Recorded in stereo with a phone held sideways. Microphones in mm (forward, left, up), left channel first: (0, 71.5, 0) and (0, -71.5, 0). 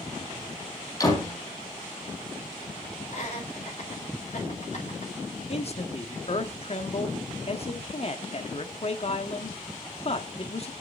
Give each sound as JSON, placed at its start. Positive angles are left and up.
{"t": 1.0, "sound": "a door slam", "side_deg": 25, "distance_m": 4.5}
{"t": 3.1, "sound": "laughter", "side_deg": 50, "distance_m": 5.0}
{"t": 5.5, "sound": "a man speaking", "side_deg": 45, "distance_m": 1.5}